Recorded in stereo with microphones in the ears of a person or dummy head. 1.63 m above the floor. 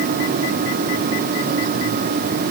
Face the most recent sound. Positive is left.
No sound to turn to.